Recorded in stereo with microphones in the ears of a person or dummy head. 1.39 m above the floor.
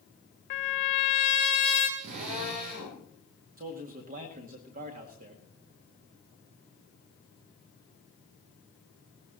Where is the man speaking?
45° right (ahead or behind), 2 m.